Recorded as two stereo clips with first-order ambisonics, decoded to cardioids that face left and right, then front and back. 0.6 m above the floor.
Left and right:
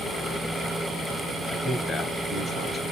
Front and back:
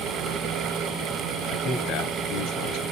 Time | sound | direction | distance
1.5 | a man speaking | 20° left | 3 m